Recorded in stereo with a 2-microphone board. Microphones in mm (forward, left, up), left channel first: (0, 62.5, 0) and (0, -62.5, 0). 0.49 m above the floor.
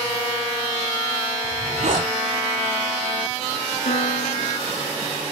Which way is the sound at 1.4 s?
85° right.